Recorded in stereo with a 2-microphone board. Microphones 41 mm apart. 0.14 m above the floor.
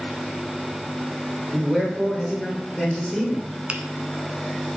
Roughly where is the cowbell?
No cowbell in this recording.